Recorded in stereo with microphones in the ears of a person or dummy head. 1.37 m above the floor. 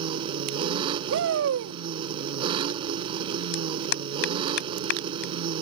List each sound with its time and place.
0.0 s an engine running: 30° right (ahead or behind)
1.1 s a shout: 75° right (ahead or behind)
3.5 s a clap: 60° left (ahead or behind)